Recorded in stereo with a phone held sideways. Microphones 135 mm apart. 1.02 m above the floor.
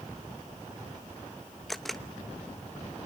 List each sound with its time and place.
1.7 s a camera shutter: centre (ahead or behind), 0.9 m